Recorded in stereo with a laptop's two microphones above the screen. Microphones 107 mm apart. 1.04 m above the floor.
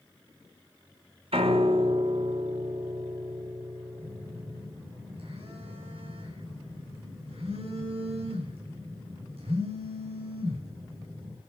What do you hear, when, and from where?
1.3 s a piano: 75° right (ahead or behind), 2.5 m
4.0 s a phone buzzing: 80° right, 8.5 m